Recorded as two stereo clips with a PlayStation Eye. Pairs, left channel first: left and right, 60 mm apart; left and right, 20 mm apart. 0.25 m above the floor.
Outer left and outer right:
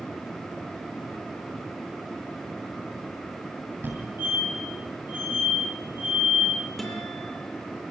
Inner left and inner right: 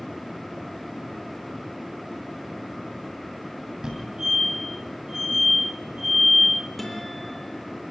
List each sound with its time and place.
3.8 s a fire alarm: 40° right (ahead or behind), 9 m
6.8 s a guitar: 5° left (ahead or behind), 6 m